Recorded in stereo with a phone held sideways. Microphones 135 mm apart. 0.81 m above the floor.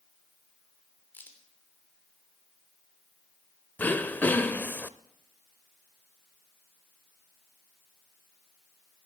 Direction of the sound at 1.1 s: 15° left (ahead or behind).